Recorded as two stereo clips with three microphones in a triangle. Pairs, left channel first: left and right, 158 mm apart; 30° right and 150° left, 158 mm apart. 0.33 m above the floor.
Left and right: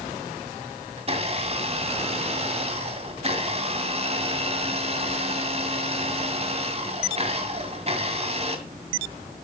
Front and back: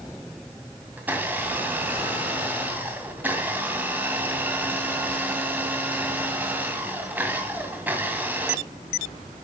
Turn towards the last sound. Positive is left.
turn(degrees=-130)